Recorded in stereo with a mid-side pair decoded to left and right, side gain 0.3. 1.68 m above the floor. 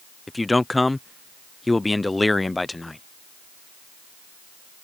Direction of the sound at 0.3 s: 25° left.